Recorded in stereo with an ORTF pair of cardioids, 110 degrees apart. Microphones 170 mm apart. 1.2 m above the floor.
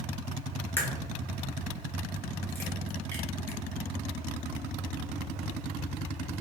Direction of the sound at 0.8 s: 15° left.